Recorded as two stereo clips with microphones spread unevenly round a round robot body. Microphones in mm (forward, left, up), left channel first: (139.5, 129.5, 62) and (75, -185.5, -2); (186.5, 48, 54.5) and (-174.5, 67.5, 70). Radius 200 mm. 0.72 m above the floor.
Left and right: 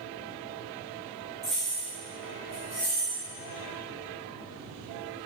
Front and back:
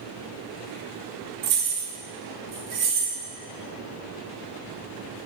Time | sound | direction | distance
1.4 | keys jangling | 165° right | 0.5 m